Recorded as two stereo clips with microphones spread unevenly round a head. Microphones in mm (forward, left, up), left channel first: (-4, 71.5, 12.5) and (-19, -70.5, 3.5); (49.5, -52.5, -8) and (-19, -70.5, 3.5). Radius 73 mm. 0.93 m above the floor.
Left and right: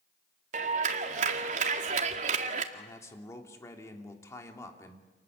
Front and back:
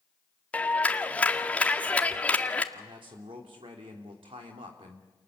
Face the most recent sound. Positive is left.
turn(degrees=155)